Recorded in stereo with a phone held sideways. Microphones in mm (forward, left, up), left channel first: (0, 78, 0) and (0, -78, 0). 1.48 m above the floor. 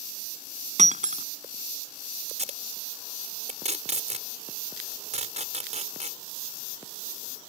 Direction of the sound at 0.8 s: 50° right (ahead or behind).